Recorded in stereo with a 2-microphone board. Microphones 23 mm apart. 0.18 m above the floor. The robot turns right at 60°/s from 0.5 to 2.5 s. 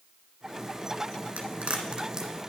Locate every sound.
1.4 s a crack: 75° right (ahead or behind), 1.8 m; by 2.3 s 20° right (ahead or behind), 1.8 m